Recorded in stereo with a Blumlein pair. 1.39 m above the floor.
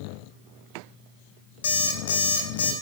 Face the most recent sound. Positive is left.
turn(degrees=65)